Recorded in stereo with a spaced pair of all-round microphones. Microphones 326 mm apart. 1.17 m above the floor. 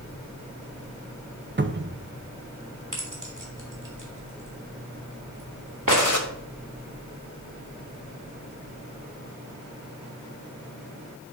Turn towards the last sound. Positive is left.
turn(degrees=65)  # may be behind; listen again after turning